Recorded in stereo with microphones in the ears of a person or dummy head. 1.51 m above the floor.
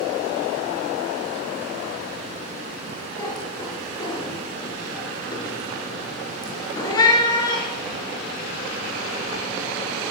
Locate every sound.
3.2 s a cat meowing: 25° left (ahead or behind), 3.5 m